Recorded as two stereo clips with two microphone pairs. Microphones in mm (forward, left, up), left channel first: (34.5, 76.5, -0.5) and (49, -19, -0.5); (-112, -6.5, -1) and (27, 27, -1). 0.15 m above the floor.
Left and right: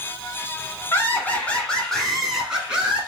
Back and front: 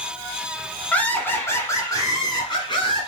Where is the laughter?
130° left, 1.4 m; by 3.1 s 150° right, 1.6 m.